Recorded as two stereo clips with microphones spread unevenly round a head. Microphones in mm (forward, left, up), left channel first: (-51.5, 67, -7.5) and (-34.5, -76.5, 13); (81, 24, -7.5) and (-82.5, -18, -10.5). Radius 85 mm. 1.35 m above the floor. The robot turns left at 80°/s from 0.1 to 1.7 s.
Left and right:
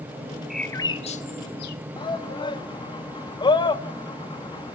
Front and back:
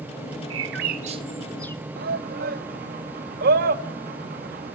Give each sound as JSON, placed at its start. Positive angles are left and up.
{"t": 0.5, "sound": "a bird", "azimuth_deg": -170, "distance_m": 1.4}
{"t": 2.0, "sound": "a shout", "azimuth_deg": 155, "distance_m": 1.8}